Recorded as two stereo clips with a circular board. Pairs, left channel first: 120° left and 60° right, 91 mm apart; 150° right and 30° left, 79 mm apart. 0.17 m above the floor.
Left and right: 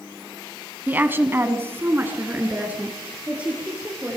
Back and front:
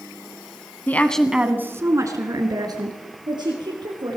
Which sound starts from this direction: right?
A woman speaking, at 0.9 s.